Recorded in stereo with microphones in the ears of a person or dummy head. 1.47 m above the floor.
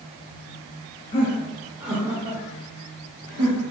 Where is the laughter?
25° left (ahead or behind), 1.0 m; by 3.6 s 70° right (ahead or behind), 1.8 m.